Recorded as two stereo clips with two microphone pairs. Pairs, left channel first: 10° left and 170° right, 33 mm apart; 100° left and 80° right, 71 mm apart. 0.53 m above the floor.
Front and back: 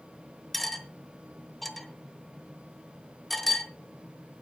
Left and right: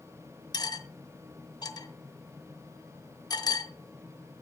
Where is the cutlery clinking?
95° left, 1.1 m.